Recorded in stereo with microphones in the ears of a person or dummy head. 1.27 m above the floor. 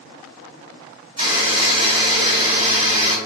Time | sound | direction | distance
1.2 | a buzzer | 35° right (ahead or behind) | 1.9 m